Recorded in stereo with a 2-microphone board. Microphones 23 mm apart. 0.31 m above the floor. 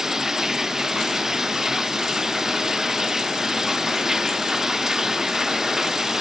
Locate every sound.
0.0 s running water: 20° right (ahead or behind)